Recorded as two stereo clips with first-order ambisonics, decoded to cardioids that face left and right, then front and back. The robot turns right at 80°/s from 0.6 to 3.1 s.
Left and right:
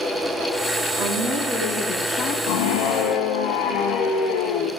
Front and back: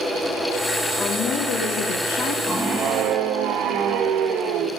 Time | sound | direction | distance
1.0 | a woman speaking | 70° right | 2.5 m
2.5 | a scream | 80° left | 1.2 m